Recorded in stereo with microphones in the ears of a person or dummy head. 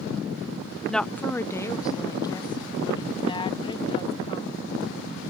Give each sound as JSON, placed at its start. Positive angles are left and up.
{"t": 0.9, "sound": "a woman speaking", "side_deg": 5}